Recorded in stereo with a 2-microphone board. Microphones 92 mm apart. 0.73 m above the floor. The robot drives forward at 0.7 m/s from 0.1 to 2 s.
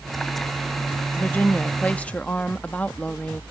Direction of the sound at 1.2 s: 20° left (ahead or behind).